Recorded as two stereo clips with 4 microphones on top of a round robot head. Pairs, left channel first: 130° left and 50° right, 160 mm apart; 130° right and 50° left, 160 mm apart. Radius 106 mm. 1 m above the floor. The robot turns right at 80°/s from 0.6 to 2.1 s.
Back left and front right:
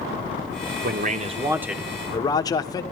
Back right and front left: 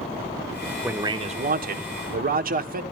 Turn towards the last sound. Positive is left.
turn(degrees=70)